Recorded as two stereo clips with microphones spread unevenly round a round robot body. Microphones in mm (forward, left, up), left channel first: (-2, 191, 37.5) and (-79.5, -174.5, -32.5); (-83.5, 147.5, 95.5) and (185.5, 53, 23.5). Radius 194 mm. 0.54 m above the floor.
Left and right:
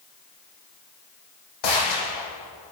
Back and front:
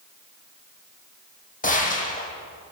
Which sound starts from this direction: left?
A gunshot, at 1.6 s.